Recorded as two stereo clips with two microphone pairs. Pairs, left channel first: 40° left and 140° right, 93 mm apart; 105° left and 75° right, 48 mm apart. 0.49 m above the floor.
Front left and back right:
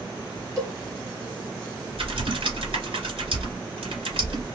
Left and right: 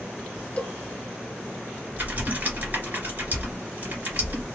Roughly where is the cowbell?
Behind.